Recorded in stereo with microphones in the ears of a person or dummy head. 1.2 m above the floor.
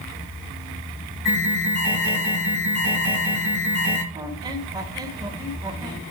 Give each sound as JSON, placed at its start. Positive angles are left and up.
{"t": 1.2, "sound": "an alarm", "side_deg": 40, "distance_m": 8.5}
{"t": 4.1, "sound": "a squeak", "side_deg": -20, "distance_m": 2.0}